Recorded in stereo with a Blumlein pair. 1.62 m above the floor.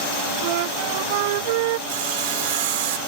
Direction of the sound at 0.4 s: 50° right.